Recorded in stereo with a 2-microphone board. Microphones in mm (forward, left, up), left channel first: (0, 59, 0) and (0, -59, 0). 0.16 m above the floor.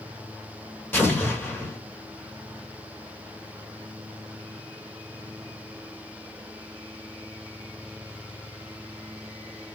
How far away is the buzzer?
No buzzer in this recording.